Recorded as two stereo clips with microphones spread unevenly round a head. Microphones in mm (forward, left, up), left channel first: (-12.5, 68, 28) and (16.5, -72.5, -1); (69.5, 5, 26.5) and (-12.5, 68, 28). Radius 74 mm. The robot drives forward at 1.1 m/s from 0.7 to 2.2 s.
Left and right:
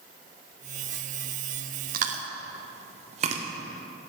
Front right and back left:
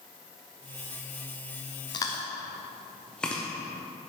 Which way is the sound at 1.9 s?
90° right.